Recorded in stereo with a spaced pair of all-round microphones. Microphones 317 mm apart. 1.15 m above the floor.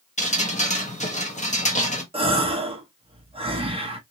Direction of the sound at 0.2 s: 20° left (ahead or behind).